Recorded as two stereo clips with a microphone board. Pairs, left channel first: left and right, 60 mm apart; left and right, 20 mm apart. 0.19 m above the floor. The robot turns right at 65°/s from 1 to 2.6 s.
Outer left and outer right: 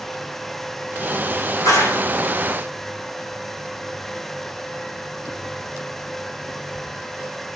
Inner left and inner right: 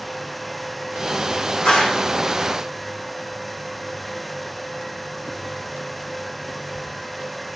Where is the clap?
70° left (ahead or behind), 8 m; by 2.0 s 80° left, 8 m.